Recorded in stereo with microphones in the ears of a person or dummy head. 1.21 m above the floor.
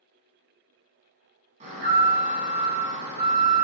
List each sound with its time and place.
1.6 s an alarm: 40° right (ahead or behind), 1.0 m